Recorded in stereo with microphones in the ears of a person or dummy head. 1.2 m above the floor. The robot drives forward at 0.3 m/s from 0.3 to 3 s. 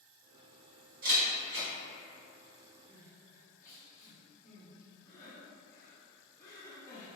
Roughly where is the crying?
Centre.